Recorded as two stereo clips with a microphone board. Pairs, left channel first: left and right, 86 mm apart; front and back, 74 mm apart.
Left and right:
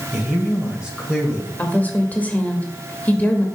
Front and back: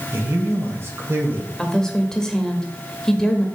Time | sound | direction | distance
0.1 | a man speaking | 165° right | 1.7 m
1.6 | a woman speaking | 65° left | 1.0 m